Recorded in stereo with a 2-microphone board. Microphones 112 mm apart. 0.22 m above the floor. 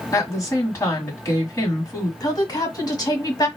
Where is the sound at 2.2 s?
35° left (ahead or behind), 1.2 m.